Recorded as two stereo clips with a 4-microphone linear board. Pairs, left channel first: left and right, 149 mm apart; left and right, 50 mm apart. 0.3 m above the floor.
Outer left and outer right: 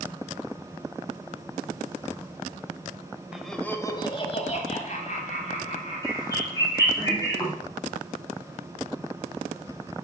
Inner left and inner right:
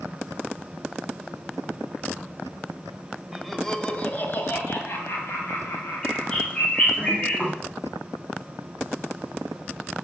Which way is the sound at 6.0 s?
25° left (ahead or behind).